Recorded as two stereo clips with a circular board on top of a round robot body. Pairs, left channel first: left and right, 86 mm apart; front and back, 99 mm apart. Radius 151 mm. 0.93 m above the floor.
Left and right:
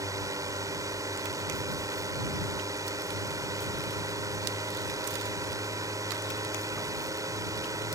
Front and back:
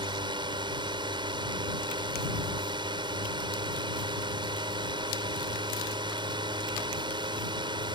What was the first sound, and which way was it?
A drone, 140° right.